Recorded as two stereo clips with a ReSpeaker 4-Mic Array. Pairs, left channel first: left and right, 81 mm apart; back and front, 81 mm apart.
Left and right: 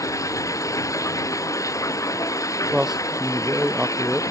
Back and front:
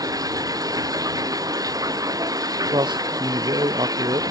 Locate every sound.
0.0 s running water: 40° left
2.7 s a man speaking: 5° right